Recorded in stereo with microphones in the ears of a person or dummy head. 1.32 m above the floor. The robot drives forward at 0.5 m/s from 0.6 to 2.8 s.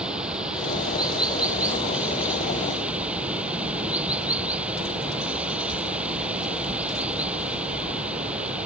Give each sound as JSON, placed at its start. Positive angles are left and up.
{"t": 0.0, "sound": "running water", "side_deg": -5}